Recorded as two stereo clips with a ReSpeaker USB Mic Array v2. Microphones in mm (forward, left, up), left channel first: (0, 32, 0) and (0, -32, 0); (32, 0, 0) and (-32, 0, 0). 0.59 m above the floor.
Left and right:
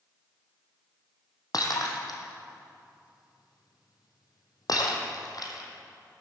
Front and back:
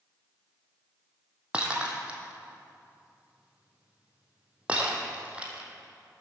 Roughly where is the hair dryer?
I don't hear a hair dryer.